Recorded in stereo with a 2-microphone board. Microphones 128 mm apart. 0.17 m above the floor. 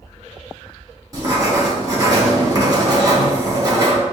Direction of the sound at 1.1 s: 30° right (ahead or behind).